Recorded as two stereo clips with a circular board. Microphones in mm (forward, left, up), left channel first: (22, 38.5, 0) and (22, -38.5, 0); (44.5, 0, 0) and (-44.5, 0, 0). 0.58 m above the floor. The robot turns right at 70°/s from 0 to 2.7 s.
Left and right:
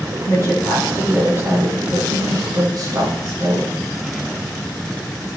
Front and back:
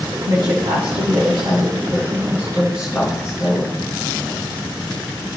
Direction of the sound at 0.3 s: 130° left.